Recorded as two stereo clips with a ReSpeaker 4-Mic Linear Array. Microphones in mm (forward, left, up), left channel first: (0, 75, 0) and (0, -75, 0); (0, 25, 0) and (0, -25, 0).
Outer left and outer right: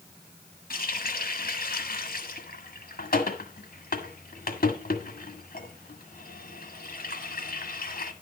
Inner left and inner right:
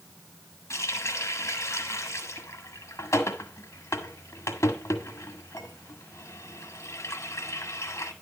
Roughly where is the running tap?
Left.